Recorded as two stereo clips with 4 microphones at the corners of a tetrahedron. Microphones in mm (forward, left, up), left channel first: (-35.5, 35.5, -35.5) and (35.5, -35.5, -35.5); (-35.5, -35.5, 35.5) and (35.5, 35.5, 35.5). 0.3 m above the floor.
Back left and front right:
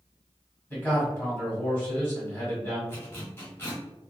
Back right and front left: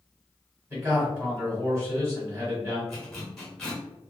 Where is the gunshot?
I don't hear a gunshot.